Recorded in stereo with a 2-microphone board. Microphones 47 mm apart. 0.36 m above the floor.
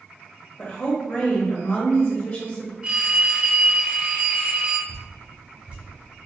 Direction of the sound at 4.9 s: 25° right (ahead or behind).